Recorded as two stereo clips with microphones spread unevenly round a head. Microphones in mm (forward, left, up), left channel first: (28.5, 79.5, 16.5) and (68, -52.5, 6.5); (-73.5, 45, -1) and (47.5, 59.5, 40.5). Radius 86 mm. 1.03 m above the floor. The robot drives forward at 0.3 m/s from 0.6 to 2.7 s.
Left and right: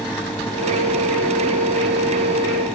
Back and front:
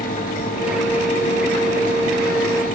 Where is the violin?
No violin in this recording.